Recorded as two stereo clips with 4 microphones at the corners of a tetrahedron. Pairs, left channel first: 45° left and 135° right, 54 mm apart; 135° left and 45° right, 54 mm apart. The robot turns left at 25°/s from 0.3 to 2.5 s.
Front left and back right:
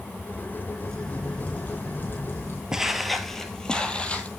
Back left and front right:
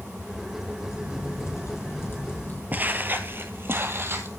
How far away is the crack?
About 5 m.